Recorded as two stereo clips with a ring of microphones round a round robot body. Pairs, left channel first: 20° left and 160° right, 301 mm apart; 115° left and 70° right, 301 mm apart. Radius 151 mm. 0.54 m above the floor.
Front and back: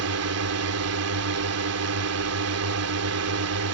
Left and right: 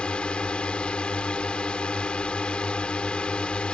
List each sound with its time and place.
0.0 s a drone: 160° right